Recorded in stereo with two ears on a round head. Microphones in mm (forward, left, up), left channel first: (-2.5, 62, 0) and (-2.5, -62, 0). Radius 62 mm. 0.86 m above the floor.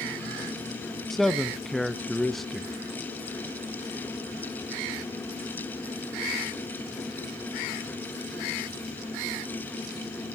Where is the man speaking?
Centre (ahead or behind), 0.5 m.